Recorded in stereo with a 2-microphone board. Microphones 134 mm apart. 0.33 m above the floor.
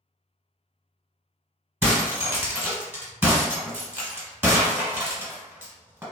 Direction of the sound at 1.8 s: 15° right (ahead or behind).